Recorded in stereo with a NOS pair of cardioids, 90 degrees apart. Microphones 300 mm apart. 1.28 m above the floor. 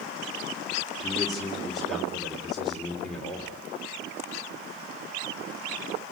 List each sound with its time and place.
1.0 s a man speaking: straight ahead, 3.5 m